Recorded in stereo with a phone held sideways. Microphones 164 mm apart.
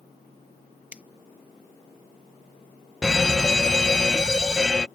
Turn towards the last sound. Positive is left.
turn(degrees=5)  # may be behind; listen again after turning